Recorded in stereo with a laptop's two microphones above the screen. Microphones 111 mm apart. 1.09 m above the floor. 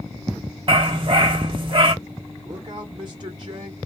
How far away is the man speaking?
About 0.6 m.